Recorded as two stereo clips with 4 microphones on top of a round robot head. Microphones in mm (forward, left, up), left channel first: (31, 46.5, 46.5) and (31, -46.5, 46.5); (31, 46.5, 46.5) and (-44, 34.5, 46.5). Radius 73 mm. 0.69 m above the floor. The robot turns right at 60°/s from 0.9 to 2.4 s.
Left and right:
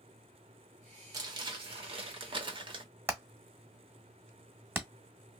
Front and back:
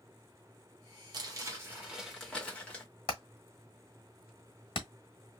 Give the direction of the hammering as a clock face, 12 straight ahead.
1 o'clock.